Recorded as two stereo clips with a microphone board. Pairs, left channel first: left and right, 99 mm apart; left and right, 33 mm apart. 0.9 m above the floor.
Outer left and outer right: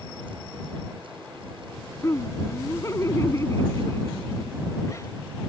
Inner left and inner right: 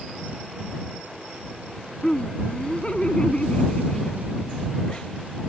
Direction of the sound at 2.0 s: 30° left (ahead or behind).